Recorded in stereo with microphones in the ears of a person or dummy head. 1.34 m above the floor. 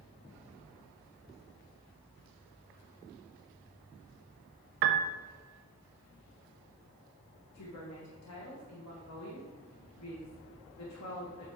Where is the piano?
60° right (ahead or behind), 0.7 m.